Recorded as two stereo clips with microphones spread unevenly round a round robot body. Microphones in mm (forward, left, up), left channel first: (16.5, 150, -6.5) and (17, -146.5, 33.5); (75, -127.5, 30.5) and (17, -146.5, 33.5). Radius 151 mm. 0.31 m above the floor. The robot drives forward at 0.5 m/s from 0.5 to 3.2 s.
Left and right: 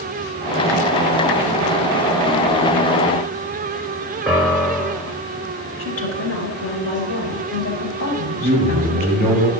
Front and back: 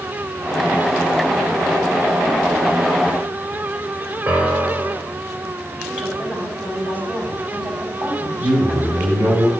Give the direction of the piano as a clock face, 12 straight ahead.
6 o'clock.